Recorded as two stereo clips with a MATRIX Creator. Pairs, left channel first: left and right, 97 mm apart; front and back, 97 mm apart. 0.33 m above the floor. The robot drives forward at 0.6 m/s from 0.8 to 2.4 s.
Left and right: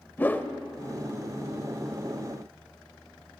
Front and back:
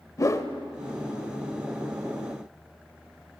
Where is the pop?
I don't hear a pop.